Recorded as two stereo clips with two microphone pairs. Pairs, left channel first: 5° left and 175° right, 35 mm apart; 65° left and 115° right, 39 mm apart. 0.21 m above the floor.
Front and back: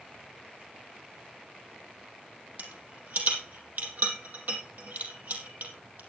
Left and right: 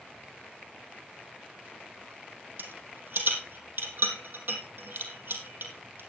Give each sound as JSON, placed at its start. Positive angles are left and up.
{"t": 2.6, "sound": "a rattle", "azimuth_deg": -145, "distance_m": 3.5}